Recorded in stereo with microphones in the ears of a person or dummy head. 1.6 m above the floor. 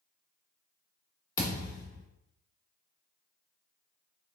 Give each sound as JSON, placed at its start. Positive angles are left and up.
{"t": 1.4, "sound": "a thud", "side_deg": 25, "distance_m": 1.9}